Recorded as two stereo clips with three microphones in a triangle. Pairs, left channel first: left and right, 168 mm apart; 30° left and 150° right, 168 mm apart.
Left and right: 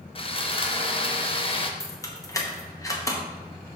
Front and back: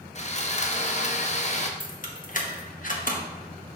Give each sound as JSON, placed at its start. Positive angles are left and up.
{"t": 0.1, "sound": "sawing", "azimuth_deg": 50, "distance_m": 0.7}
{"t": 1.8, "sound": "keys jangling", "azimuth_deg": 25, "distance_m": 1.0}